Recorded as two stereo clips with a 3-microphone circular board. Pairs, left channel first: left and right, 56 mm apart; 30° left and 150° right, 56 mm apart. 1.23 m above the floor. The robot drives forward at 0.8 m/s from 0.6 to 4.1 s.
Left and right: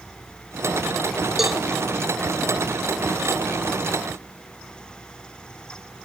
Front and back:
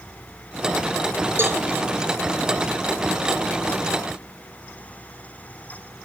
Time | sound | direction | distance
1.4 | a cowbell | 175° right | 0.7 m